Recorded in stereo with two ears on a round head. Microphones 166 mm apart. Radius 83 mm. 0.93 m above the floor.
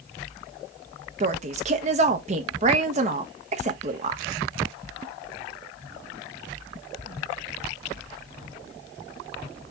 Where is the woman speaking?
40° right (ahead or behind), 0.8 m.